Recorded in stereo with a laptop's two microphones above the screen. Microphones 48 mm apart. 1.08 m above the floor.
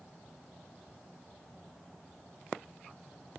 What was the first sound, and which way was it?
Only background noise.